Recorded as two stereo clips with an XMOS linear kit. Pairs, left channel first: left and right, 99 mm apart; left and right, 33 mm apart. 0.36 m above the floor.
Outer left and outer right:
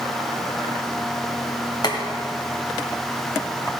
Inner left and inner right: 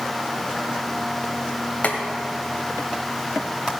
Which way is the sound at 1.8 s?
45° left (ahead or behind).